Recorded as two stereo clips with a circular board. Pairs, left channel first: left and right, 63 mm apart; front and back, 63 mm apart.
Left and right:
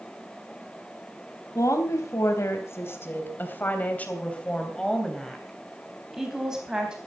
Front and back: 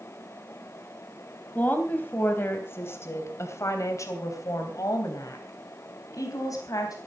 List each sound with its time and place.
1.6 s a woman speaking: 65° left, 3.5 m; by 7.0 s 15° right, 4 m